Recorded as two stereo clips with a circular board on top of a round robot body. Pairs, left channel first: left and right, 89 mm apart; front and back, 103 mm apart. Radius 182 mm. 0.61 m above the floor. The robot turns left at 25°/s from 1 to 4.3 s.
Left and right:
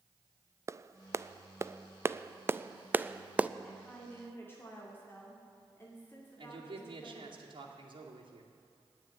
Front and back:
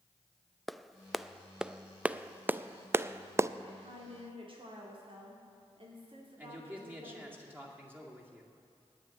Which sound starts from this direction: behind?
A woman speaking, at 3.6 s.